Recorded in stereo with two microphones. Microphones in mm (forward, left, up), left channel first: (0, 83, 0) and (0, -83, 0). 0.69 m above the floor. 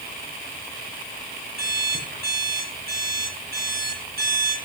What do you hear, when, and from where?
1.6 s an alarm clock: 70° right (ahead or behind), 5.5 m